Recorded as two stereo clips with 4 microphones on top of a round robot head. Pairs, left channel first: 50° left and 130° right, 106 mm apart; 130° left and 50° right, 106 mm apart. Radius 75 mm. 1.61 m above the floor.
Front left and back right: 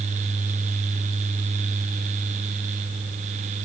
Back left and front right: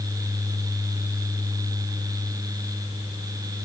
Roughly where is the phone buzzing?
I don't hear a phone buzzing.